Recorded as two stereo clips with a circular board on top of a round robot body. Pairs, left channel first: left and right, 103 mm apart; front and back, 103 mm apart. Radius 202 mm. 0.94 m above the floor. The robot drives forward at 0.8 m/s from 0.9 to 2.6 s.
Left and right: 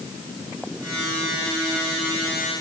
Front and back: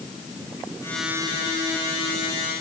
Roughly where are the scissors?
No scissors in this recording.